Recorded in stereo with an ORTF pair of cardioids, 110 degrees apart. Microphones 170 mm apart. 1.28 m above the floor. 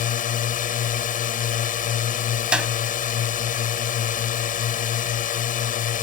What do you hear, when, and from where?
0.0 s a drone: 55° left
2.5 s a clap: 5° right